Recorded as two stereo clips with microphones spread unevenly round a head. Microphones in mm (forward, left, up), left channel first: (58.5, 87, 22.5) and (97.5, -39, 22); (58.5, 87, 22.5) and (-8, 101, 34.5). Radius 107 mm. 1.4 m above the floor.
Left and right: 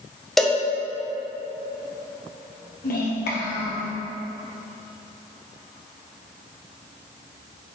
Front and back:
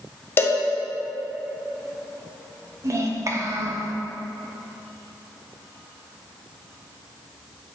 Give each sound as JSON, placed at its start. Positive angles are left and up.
{"t": 0.4, "sound": "a cowbell", "azimuth_deg": 20, "distance_m": 0.7}
{"t": 2.8, "sound": "a child speaking", "azimuth_deg": 130, "distance_m": 1.2}